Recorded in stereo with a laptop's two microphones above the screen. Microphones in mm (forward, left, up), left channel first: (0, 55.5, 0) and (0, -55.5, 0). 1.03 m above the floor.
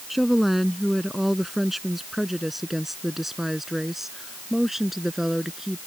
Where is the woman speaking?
Centre (ahead or behind); by 5.8 s 5° right (ahead or behind).